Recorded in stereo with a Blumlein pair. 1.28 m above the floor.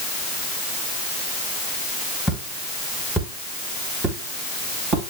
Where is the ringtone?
I don't hear a ringtone.